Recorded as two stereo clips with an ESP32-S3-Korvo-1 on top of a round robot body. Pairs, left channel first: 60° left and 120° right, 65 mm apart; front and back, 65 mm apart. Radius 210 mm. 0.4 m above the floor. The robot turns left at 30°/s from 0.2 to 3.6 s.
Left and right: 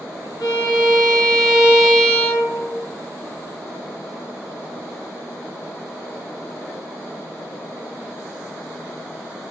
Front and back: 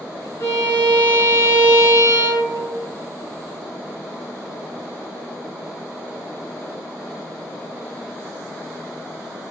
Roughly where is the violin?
Ahead left.